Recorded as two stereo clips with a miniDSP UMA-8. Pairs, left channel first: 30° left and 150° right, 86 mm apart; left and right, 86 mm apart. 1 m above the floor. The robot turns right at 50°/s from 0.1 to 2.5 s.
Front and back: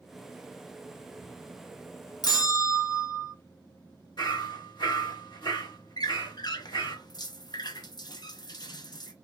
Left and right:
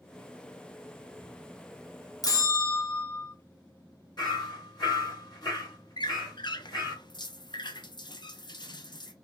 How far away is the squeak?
About 0.5 m.